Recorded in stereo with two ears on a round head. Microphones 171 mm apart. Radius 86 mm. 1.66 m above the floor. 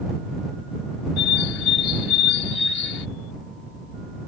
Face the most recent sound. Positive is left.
turn(degrees=75)  # may be behind; listen again after turning